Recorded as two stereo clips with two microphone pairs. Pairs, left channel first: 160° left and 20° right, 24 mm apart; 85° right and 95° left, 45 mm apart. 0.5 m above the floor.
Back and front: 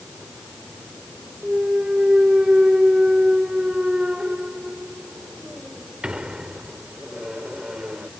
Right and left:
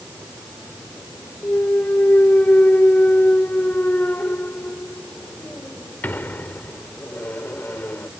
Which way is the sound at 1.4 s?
55° right.